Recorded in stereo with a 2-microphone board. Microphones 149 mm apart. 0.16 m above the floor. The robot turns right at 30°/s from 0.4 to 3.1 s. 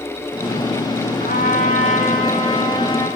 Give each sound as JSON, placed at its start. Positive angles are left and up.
{"t": 1.2, "sound": "a trumpet", "azimuth_deg": 100, "distance_m": 9.5}